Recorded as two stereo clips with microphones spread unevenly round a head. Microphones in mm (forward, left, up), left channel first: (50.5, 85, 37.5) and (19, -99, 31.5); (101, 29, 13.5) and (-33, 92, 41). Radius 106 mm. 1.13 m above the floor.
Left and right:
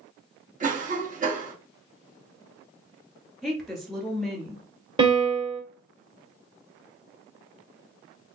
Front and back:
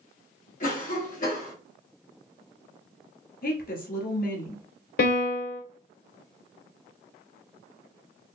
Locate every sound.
0.6 s a cough: 55° right, 1.3 m
3.4 s a woman speaking: 10° right, 2 m
5.0 s a piano: 35° right, 1.9 m